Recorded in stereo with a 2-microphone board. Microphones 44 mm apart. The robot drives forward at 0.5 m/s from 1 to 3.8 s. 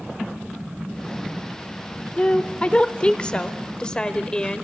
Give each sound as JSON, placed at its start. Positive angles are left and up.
{"t": 2.2, "sound": "a woman speaking", "side_deg": 25, "distance_m": 0.9}